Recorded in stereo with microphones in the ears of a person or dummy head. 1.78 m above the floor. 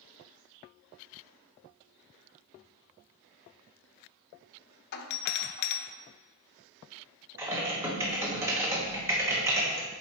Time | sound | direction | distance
4.9 | a doorbell | 55° left (ahead or behind) | 0.6 m
7.4 | typing on a keyboard | 15° right (ahead or behind) | 1.2 m